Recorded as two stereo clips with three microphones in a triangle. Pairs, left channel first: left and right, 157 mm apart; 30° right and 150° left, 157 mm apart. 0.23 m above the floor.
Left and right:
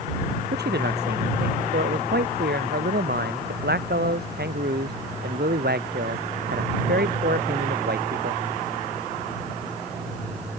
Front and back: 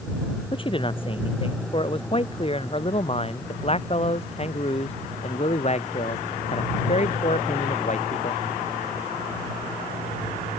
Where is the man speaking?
90° right; by 8.4 s 75° right.